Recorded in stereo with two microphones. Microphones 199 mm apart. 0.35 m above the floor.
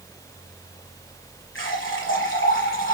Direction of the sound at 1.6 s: 80° left.